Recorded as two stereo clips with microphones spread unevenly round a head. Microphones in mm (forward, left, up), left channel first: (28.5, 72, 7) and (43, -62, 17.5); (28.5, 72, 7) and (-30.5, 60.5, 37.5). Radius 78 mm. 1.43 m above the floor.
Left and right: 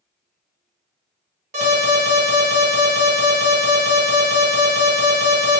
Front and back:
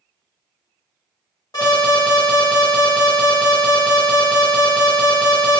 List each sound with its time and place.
1.5 s an alarm: 50° right, 1.8 m